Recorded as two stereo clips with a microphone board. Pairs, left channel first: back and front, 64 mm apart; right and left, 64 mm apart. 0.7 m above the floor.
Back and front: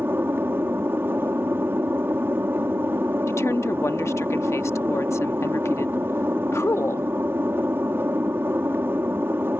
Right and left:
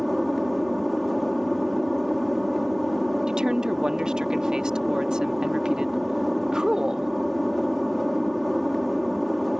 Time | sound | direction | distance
0.0 | an aircraft | straight ahead | ?
3.3 | a woman speaking | 165° left | ?